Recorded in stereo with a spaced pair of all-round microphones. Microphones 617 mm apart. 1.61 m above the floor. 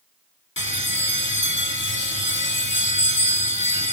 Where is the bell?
20° left (ahead or behind), 1.0 m.